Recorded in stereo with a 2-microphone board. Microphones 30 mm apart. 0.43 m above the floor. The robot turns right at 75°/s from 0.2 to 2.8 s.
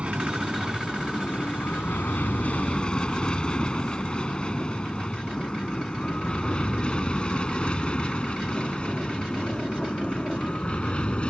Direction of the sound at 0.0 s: 45° right (ahead or behind).